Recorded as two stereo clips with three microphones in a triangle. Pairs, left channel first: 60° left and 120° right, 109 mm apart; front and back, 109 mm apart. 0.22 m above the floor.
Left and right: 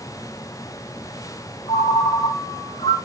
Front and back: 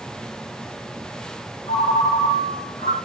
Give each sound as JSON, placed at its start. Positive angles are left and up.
{"t": 1.7, "sound": "a ringtone", "azimuth_deg": 15, "distance_m": 3.5}